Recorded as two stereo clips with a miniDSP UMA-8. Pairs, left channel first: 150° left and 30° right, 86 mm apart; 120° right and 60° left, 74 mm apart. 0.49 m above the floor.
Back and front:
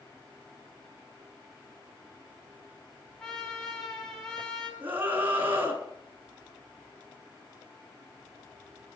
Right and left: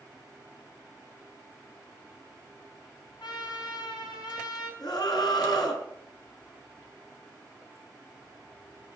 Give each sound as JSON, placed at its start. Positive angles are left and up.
{"t": 3.2, "sound": "a trumpet", "azimuth_deg": -125, "distance_m": 4.0}
{"t": 4.8, "sound": "a scream", "azimuth_deg": -95, "distance_m": 4.5}